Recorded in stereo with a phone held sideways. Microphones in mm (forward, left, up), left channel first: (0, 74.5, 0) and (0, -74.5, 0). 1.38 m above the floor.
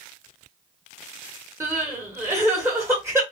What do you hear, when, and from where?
1.6 s crying: 20° right (ahead or behind), 1.4 m